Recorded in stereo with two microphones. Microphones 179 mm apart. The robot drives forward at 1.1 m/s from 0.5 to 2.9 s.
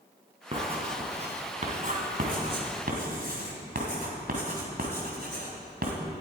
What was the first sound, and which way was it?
Writing, 30° right (ahead or behind).